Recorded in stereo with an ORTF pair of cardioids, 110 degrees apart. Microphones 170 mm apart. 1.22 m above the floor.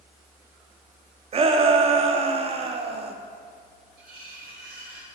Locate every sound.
1.3 s a shout: 35° right, 0.6 m
4.0 s cutlery clinking: 60° right, 1.4 m